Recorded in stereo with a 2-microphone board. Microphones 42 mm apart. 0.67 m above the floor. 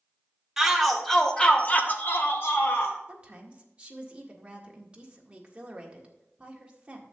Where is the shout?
5° right (ahead or behind), 1.7 m; by 3.0 s 65° left (ahead or behind), 1.7 m.